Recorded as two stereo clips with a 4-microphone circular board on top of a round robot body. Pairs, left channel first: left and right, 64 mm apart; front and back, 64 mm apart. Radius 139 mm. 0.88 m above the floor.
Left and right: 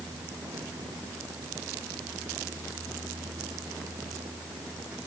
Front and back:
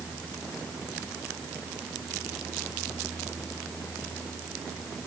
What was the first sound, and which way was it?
Only background noise.